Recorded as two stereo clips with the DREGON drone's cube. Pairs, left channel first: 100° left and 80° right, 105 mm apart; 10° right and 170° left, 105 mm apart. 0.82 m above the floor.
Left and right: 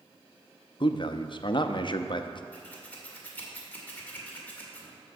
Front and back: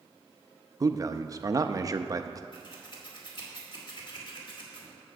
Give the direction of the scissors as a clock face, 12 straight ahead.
11 o'clock.